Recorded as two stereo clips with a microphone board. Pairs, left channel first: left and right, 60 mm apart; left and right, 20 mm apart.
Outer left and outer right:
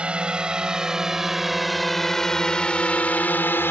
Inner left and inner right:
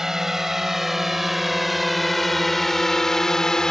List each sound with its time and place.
0.0 s a drone: 15° right (ahead or behind); by 3.7 s 35° left (ahead or behind)